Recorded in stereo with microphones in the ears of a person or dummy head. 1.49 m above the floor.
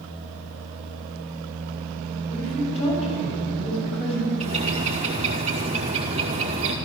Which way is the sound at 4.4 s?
30° right (ahead or behind).